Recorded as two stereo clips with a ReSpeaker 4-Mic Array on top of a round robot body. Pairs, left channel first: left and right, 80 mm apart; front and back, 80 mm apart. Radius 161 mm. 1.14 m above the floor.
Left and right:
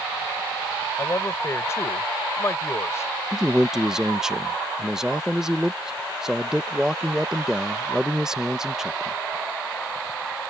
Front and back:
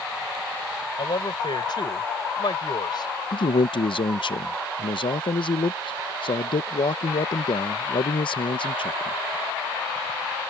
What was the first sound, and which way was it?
A man speaking, 30° left.